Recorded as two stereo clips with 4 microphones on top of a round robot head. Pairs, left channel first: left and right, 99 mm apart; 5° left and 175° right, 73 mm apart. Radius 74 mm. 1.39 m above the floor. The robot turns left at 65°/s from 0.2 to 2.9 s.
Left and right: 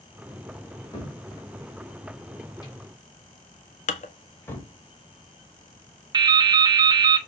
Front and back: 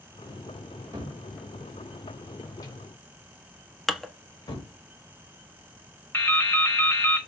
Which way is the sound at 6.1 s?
70° right.